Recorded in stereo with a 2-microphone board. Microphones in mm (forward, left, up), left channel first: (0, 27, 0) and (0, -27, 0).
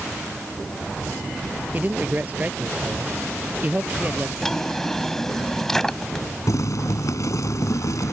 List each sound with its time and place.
1.7 s a man speaking: 30° right (ahead or behind)
4.4 s a drawer: 5° left (ahead or behind)
6.5 s boiling: 80° left